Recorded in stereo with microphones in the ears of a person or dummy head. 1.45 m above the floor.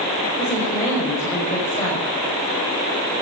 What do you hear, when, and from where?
0.4 s a woman speaking: 15° left (ahead or behind), 6.5 m